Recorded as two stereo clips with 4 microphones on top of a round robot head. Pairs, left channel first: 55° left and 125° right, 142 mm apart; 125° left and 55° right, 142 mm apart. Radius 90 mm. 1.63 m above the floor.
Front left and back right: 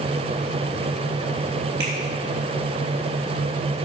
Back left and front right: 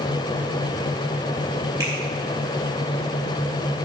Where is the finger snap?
125° right, 5 m.